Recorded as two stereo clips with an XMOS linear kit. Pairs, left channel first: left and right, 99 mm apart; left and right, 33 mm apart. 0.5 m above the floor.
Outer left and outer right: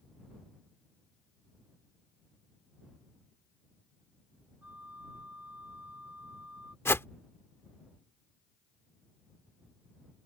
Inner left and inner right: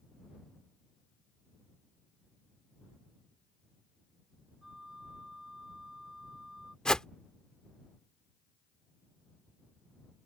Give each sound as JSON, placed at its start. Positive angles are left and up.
{"t": 4.6, "sound": "a flute", "side_deg": -15}
{"t": 6.8, "sound": "a whoosh", "side_deg": 25}